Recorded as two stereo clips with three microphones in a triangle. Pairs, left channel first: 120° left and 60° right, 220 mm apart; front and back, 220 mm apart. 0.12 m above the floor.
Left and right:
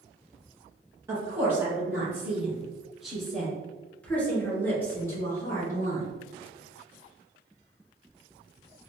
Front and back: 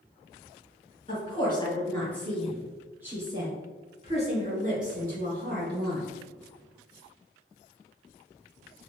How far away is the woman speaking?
About 1.7 m.